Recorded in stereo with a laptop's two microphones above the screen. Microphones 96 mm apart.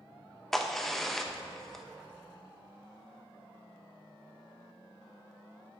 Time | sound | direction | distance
0.5 | a crack | 5° left (ahead or behind) | 0.7 m